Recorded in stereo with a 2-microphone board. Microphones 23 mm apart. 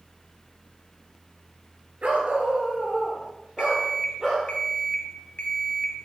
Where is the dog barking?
65° right (ahead or behind), 2.5 m; by 4.5 s 30° right (ahead or behind), 4 m.